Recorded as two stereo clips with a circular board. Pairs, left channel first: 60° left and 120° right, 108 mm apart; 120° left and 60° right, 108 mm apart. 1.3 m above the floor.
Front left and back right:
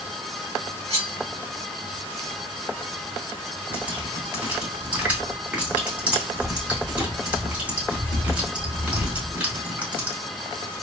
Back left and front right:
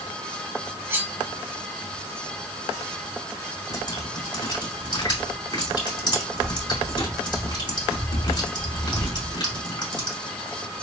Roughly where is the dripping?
Behind.